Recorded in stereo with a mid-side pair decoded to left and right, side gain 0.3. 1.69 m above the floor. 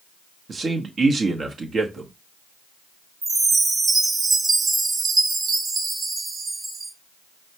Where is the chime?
55° right, 0.8 m.